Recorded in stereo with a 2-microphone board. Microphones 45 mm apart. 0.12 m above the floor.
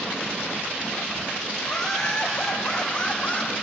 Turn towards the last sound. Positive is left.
turn(degrees=20)  # may be behind; listen again after turning